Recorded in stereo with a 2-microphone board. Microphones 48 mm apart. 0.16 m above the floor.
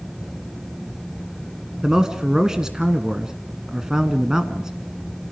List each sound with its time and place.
1.8 s a man speaking: 10° right (ahead or behind), 1.3 m